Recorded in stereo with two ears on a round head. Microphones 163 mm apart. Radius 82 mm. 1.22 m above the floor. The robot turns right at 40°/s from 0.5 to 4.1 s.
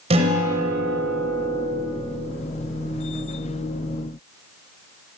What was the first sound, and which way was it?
A guitar, 35° right.